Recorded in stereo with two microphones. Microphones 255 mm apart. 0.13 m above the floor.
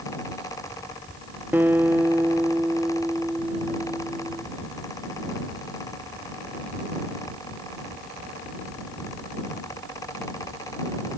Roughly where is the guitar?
Centre.